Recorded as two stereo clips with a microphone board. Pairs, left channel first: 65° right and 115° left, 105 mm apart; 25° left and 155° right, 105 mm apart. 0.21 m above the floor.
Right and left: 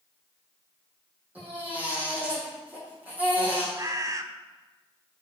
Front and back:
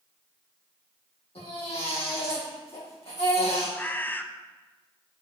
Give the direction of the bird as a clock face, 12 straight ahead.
9 o'clock.